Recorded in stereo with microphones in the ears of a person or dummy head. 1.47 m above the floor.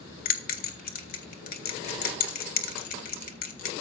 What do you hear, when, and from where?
0.2 s a bell: 45° left (ahead or behind), 1.0 m